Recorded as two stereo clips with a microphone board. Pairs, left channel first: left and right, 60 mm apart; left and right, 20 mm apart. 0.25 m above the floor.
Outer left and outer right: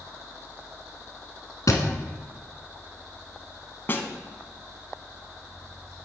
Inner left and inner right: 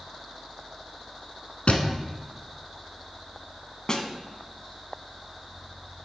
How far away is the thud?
About 1.2 m.